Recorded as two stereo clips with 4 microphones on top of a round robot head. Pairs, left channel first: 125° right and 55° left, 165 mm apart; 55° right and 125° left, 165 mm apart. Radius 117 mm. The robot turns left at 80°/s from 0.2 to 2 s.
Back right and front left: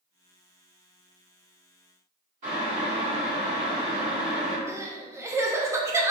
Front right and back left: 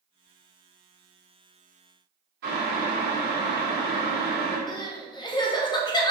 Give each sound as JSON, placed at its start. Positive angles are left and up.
{"t": 2.4, "sound": "boiling", "azimuth_deg": 100, "distance_m": 2.0}
{"t": 4.7, "sound": "crying", "azimuth_deg": -10, "distance_m": 0.6}